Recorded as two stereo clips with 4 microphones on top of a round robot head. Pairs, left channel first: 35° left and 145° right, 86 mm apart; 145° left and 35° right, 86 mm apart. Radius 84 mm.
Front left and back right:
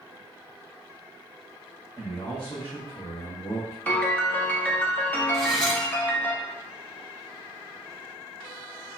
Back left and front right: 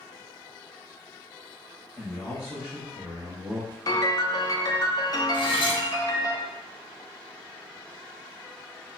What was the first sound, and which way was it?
A man speaking, 85° left.